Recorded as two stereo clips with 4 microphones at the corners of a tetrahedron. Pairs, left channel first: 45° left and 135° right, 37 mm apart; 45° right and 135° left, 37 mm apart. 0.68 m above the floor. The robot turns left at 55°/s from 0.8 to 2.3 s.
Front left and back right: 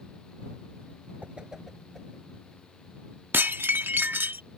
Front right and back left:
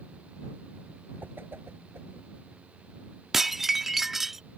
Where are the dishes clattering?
145° right.